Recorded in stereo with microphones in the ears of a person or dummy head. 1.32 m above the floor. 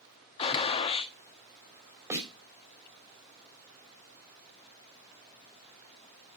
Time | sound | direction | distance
0.4 | a gunshot | 30° left (ahead or behind) | 1.1 m
2.1 | a snare drum | 15° right (ahead or behind) | 4 m